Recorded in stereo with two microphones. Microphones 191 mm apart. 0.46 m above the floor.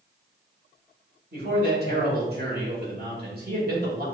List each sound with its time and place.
1.3 s a man speaking: 50° right (ahead or behind), 2.0 m